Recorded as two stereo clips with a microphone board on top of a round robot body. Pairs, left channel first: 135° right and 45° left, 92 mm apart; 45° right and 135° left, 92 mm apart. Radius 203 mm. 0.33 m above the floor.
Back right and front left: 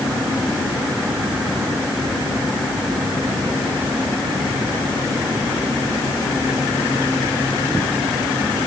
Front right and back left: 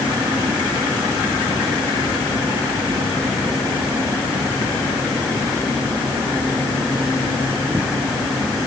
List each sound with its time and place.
Only background noise.